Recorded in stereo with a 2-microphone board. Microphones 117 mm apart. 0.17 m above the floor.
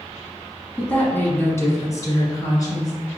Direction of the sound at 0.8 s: 10° left (ahead or behind).